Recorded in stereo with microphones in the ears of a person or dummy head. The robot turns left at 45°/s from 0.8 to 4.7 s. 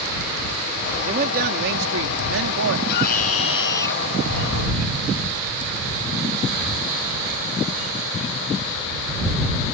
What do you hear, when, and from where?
1.0 s a man speaking: 30° right; by 2.8 s 115° right
2.9 s a scream: 60° left; by 4.0 s 10° left